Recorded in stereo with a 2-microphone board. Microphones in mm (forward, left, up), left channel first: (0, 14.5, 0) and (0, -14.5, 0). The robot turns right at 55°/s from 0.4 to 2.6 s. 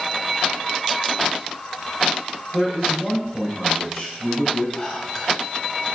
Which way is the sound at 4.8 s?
20° left (ahead or behind).